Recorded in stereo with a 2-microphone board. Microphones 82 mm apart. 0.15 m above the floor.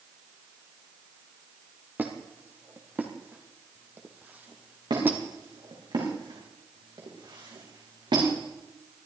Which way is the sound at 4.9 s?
65° right (ahead or behind).